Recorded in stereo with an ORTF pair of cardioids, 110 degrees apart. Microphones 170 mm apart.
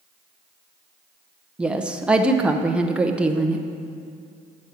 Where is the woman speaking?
5° right, 0.7 m.